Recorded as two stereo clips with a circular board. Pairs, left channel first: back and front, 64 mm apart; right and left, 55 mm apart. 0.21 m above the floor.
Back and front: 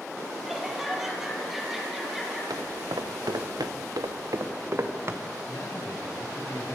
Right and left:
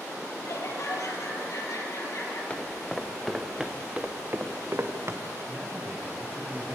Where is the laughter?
85° right, 5.5 m.